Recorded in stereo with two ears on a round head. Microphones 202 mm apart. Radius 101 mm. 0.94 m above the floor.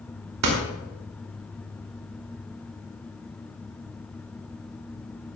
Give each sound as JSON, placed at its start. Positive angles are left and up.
{"t": 0.4, "sound": "a door slam", "side_deg": -85, "distance_m": 2.5}